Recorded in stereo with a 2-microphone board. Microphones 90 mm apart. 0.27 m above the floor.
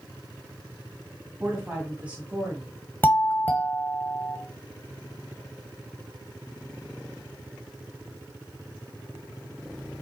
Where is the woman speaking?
15° right (ahead or behind), 2 m.